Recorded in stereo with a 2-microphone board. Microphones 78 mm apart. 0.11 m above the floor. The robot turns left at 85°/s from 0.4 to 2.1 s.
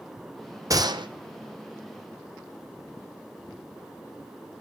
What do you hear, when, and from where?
0.7 s a gunshot: 45° right, 0.8 m; by 1.1 s 80° right, 0.8 m